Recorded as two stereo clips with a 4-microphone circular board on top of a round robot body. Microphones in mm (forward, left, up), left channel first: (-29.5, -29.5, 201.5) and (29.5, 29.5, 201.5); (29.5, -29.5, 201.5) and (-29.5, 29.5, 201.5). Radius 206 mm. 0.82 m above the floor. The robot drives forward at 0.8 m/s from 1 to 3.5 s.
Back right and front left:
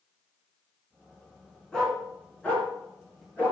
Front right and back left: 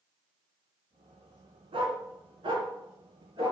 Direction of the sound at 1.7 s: 145° left.